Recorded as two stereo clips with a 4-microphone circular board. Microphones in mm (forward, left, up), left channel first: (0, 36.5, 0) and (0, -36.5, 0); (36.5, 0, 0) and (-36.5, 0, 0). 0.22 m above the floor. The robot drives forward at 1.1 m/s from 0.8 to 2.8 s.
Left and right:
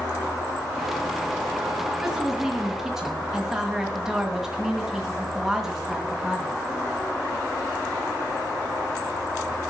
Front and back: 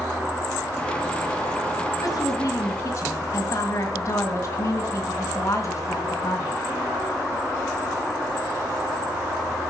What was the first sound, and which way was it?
A woman speaking, 5° right.